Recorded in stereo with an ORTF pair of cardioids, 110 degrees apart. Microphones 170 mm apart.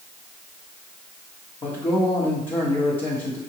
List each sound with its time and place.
1.6 s a man speaking: 30° left, 1.2 m